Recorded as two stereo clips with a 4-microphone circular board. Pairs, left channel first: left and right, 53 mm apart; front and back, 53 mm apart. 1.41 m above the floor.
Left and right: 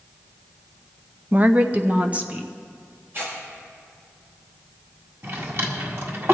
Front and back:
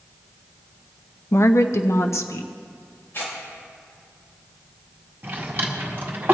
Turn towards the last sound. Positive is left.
turn(degrees=-125)